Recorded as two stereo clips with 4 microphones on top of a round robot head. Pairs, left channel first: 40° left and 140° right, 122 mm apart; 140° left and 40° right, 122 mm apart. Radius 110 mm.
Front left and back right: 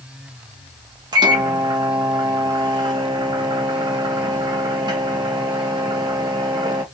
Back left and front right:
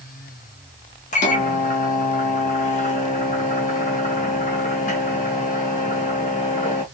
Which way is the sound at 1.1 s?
165° left.